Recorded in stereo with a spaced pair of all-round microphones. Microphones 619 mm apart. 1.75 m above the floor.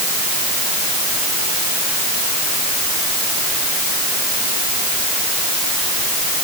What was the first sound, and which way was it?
Only background noise.